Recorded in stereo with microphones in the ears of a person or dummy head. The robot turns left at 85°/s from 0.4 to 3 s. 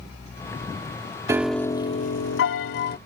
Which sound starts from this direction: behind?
A piano, at 1.3 s.